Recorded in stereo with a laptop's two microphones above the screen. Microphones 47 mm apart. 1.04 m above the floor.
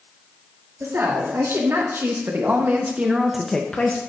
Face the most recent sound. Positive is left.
turn(degrees=35)  # may be behind; listen again after turning